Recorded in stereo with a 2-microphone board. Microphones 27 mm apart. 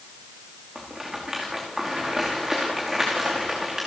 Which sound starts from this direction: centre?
A rattle, at 0.8 s.